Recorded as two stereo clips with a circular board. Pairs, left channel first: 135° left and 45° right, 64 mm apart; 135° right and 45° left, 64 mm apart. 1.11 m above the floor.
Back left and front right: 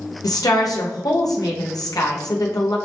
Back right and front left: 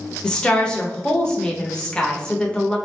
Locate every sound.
0.2 s a woman speaking: 150° left, 0.7 m